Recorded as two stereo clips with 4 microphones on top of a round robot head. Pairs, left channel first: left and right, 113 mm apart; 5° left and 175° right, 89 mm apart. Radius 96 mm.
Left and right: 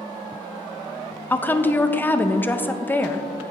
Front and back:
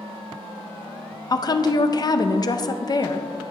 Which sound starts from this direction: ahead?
A woman speaking, at 1.3 s.